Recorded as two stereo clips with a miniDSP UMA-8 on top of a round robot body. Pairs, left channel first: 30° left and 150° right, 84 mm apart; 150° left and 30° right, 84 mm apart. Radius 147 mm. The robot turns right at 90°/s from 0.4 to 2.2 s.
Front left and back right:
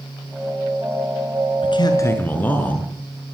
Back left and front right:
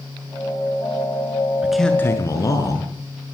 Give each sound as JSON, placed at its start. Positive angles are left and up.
{"t": 1.6, "sound": "a man speaking", "azimuth_deg": 45, "distance_m": 7.0}